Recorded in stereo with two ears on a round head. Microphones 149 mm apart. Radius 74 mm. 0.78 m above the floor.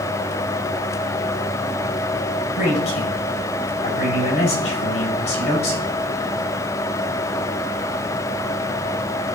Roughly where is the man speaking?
Left.